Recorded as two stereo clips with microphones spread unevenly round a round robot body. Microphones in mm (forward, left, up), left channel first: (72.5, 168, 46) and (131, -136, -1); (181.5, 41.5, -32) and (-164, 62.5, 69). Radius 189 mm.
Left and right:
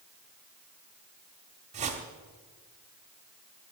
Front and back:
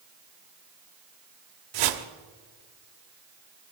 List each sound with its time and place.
1.7 s a whoosh: 150° right, 0.9 m